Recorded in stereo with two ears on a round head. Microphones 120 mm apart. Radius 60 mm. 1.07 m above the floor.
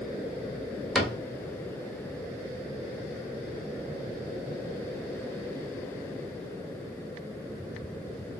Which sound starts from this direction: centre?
A cupboard door, at 0.9 s.